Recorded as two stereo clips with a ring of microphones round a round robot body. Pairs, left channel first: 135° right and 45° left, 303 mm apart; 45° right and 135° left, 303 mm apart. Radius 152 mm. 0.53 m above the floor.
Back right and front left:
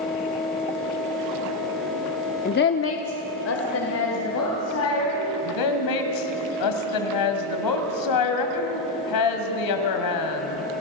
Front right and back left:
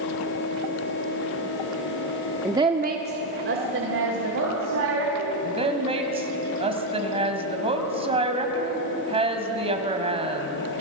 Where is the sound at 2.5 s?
145° right, 0.7 m; by 5.3 s straight behind, 4.5 m.